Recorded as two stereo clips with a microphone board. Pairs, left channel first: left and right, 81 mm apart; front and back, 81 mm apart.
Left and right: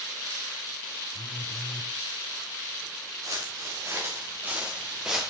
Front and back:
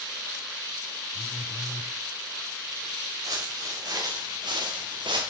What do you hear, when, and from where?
1.1 s a phone buzzing: 85° left, 1.3 m
3.2 s footsteps: 135° right, 3.5 m; by 5.3 s 175° right, 2.5 m